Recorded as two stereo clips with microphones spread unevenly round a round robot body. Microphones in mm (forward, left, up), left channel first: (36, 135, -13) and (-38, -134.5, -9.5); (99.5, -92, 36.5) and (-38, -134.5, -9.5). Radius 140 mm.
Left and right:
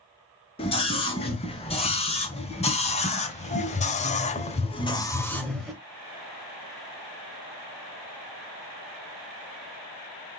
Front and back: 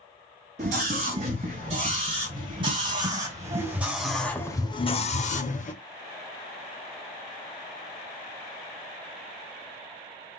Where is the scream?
145° left, 4.5 m; by 5.8 s 15° right, 1.4 m.